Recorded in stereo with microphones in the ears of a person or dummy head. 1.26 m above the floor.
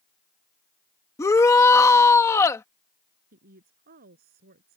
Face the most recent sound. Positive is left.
turn(degrees=-45)  # may be behind; listen again after turning